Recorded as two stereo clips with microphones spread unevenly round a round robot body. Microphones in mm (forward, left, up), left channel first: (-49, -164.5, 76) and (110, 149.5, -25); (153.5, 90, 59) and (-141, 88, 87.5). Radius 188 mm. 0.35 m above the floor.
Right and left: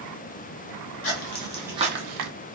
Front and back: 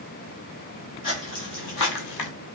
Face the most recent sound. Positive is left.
turn(degrees=20)